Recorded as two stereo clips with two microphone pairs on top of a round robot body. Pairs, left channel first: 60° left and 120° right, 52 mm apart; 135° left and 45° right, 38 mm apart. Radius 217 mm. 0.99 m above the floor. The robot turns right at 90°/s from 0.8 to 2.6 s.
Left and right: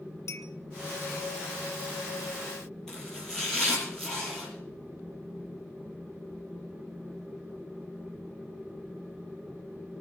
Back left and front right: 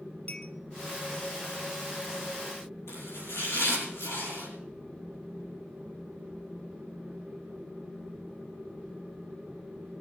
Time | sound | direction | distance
0.3 | a clink | 85° left | 1.2 m
2.9 | chopping | 140° left | 7.5 m